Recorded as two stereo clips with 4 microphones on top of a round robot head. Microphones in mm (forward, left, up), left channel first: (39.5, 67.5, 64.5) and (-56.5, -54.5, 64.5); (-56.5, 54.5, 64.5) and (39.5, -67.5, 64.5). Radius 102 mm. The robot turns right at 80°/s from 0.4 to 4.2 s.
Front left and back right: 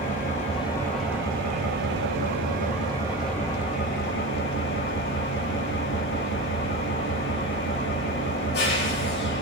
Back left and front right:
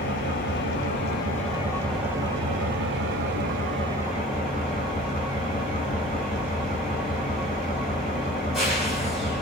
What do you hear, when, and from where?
0.0 s an engine running: 95° left, 5 m; by 9.4 s 40° left, 5 m